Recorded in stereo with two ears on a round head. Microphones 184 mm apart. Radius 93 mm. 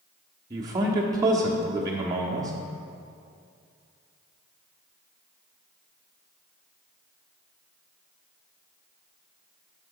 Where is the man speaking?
20° right (ahead or behind), 1.0 m.